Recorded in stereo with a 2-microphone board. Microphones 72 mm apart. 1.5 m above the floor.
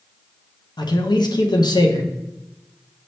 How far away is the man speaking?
About 0.8 m.